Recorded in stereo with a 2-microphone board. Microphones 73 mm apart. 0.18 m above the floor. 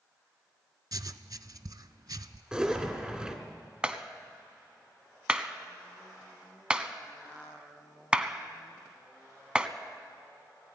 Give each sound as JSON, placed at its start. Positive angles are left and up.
{"t": 0.9, "sound": "writing", "side_deg": -60, "distance_m": 0.6}
{"t": 2.5, "sound": "a zipper", "side_deg": -10, "distance_m": 2.0}
{"t": 3.8, "sound": "a clap", "side_deg": -15, "distance_m": 1.0}